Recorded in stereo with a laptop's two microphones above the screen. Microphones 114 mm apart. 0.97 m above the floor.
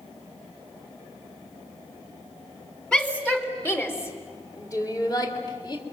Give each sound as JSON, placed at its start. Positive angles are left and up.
{"t": 2.9, "sound": "a shout", "side_deg": 10, "distance_m": 3.0}